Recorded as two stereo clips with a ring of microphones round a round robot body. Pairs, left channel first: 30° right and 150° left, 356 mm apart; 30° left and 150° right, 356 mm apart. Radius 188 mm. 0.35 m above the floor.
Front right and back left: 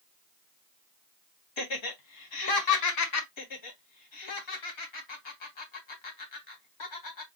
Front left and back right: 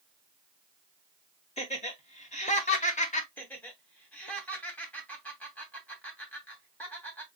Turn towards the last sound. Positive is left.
turn(degrees=-55)